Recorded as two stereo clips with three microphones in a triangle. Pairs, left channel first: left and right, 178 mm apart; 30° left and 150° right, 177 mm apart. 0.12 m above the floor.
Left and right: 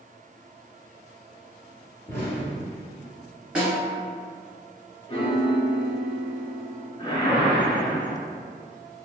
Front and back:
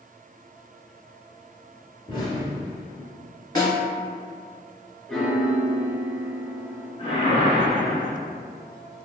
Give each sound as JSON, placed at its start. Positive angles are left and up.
{"t": 2.1, "sound": "an explosion", "azimuth_deg": 30, "distance_m": 1.3}
{"t": 3.5, "sound": "a snare drum", "azimuth_deg": -10, "distance_m": 1.5}
{"t": 5.1, "sound": "a piano", "azimuth_deg": 115, "distance_m": 0.5}
{"t": 7.0, "sound": "a whoosh", "azimuth_deg": 50, "distance_m": 0.7}